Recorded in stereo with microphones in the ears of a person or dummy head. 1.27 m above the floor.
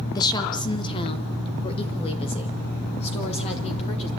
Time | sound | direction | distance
0.1 | a woman speaking | 20° left (ahead or behind) | 0.6 m